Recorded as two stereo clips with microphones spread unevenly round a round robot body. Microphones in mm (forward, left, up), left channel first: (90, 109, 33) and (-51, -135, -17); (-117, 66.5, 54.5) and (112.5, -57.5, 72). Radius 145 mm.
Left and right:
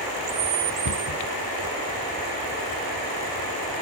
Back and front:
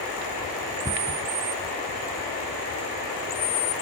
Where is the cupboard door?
50° left.